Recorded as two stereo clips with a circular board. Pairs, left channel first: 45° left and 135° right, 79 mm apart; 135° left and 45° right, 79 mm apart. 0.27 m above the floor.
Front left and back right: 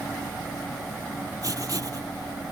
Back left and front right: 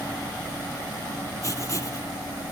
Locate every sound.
1.4 s writing: 175° right